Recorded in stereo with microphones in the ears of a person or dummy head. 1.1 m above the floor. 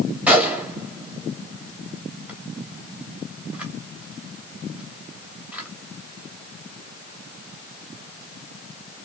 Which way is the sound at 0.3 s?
5° right (ahead or behind).